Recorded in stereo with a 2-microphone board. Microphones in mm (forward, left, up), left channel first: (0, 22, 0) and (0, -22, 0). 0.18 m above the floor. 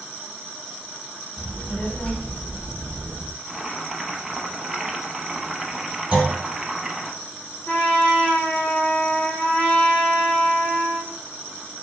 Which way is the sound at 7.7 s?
40° left (ahead or behind).